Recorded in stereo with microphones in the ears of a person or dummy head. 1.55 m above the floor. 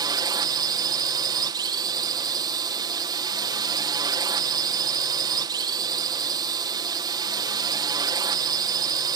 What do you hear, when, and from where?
0.0 s a drone: 20° right (ahead or behind)